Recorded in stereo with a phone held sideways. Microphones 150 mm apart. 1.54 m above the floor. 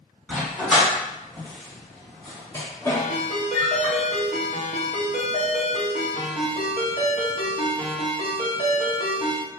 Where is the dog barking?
5° left (ahead or behind), 2.0 m; by 3.9 s 25° left (ahead or behind), 1.2 m.